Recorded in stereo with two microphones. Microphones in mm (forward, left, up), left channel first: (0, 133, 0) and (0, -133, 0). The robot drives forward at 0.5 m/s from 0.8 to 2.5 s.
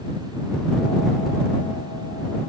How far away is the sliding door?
I don't hear a sliding door.